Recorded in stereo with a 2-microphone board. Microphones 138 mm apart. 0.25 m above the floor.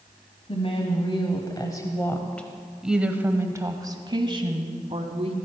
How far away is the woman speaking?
About 1.6 m.